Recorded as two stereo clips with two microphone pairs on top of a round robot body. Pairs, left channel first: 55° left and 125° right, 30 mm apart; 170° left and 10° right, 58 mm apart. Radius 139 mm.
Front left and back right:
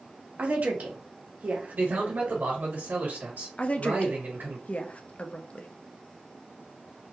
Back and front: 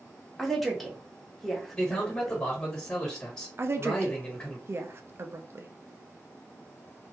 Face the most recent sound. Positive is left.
turn(degrees=20)